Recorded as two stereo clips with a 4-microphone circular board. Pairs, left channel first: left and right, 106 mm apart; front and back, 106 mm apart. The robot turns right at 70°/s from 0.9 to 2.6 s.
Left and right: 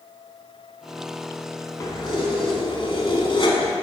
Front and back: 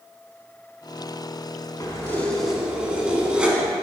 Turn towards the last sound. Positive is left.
turn(degrees=100)